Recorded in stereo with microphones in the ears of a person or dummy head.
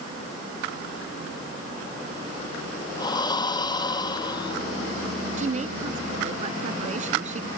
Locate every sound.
3.0 s breathing: 25° left (ahead or behind)
5.4 s a woman speaking: 40° right (ahead or behind)